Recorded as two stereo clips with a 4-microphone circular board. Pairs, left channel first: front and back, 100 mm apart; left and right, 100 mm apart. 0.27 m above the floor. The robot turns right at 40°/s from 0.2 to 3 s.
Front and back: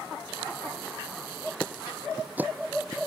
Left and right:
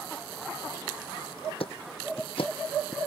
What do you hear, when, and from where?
1.6 s ticking: 75° left; by 3.0 s 130° left